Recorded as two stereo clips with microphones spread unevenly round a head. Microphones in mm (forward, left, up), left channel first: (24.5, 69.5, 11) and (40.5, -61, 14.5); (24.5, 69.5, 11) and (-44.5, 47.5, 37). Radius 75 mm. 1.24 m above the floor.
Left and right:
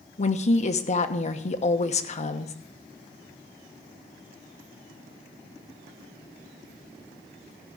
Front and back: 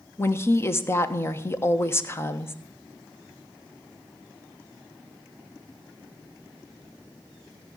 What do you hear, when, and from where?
0.2 s a woman speaking: 65° left, 1.1 m